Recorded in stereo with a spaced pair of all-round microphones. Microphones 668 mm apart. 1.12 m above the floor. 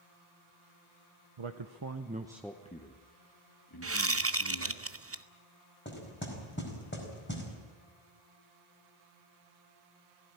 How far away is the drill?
I don't hear a drill.